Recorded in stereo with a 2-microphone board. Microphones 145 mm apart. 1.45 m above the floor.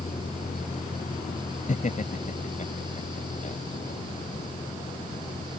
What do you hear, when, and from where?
0.0 s a vehicle: 50° left (ahead or behind); by 5.6 s 85° left
1.7 s laughter: 60° left (ahead or behind)